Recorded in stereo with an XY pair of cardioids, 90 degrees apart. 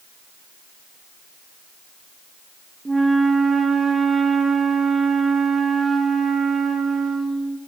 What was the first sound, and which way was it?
A flute, 25° right.